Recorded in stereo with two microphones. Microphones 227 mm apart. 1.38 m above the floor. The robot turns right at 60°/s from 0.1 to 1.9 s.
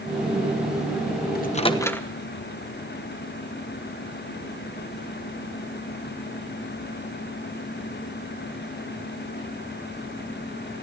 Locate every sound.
1.4 s a microwave: 40° left (ahead or behind), 1.0 m; by 2.1 s 10° left (ahead or behind), 1.0 m